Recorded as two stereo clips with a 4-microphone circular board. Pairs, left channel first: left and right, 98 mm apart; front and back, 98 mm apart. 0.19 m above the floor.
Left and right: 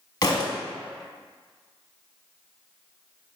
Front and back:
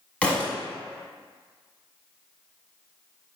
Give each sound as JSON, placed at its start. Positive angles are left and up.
{"t": 0.2, "sound": "a thud", "azimuth_deg": 70, "distance_m": 0.7}